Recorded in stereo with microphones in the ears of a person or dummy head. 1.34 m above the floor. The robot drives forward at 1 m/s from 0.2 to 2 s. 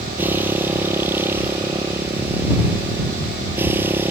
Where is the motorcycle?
10° right (ahead or behind); by 4.1 s 15° right (ahead or behind).